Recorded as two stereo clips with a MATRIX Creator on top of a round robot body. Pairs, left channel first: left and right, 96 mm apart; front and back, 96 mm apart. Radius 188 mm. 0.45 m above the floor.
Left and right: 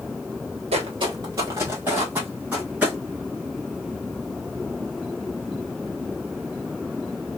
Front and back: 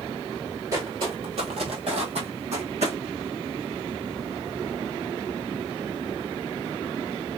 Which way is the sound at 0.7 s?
120° right.